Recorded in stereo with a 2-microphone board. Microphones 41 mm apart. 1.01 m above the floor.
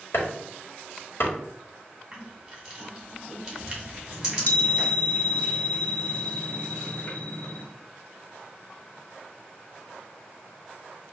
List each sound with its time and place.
0.1 s chopping: 65° left (ahead or behind), 1.5 m
2.1 s crushing: 15° right (ahead or behind), 2 m
4.1 s a chime: 45° left (ahead or behind), 1.2 m